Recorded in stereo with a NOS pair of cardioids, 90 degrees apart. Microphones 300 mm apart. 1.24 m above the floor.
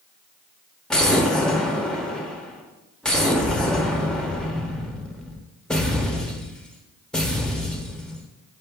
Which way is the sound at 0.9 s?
Straight ahead.